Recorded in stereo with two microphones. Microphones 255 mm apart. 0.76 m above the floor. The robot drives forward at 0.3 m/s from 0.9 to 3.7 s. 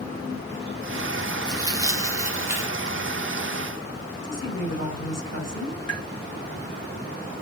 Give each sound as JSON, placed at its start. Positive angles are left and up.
{"t": 1.5, "sound": "tearing paper", "side_deg": -15, "distance_m": 0.6}
{"t": 4.2, "sound": "a woman speaking", "side_deg": 75, "distance_m": 2.5}
{"t": 5.9, "sound": "tapping", "side_deg": 70, "distance_m": 1.5}